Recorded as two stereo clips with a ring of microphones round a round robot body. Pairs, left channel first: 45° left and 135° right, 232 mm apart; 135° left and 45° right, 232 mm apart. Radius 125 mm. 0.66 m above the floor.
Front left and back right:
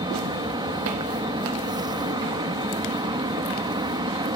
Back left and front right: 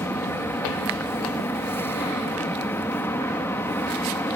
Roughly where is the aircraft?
Behind.